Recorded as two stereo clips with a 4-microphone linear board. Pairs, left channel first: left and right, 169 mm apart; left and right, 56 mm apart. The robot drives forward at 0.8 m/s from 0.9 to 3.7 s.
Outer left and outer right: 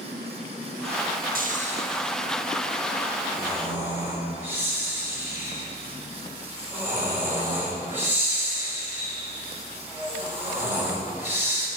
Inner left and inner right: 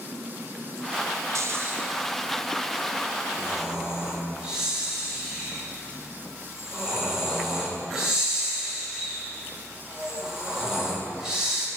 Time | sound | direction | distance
1.4 | snoring | 60° right (ahead or behind) | 0.5 m